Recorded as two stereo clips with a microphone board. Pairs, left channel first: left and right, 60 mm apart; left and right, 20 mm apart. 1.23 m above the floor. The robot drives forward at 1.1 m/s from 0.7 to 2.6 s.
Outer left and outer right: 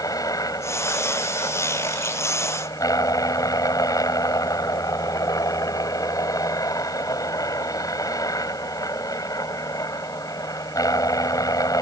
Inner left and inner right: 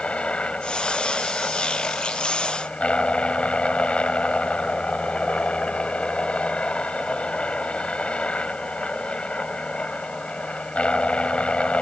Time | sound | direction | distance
0.0 | a helicopter | 75° left (ahead or behind) | ?